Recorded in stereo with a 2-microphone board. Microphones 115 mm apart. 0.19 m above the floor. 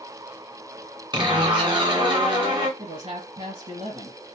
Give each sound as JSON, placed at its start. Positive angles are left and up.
{"t": 1.1, "sound": "a zipper", "side_deg": -45, "distance_m": 2.0}
{"t": 2.8, "sound": "a man speaking", "side_deg": -55, "distance_m": 2.5}